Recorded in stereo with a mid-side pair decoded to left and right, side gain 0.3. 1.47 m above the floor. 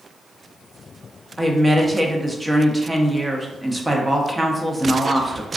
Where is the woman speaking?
30° right, 0.7 m.